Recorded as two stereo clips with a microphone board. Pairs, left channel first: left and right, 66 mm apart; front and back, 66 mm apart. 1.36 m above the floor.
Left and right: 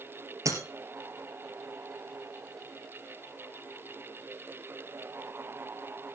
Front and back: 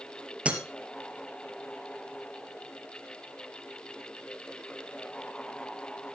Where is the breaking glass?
110° right, 2.5 m.